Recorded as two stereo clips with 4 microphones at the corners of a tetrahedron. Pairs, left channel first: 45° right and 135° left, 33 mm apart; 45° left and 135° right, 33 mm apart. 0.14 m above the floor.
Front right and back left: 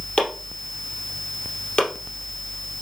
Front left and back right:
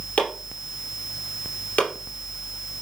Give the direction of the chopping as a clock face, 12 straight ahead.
12 o'clock.